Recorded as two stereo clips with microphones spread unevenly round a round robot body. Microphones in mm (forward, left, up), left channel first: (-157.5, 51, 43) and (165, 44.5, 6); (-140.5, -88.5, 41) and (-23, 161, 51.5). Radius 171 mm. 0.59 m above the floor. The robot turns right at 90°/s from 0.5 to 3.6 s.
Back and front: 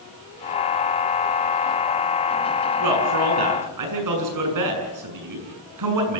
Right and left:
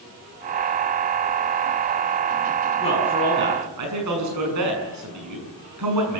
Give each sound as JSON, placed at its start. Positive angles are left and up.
{"t": 2.8, "sound": "a man speaking", "azimuth_deg": -45, "distance_m": 7.0}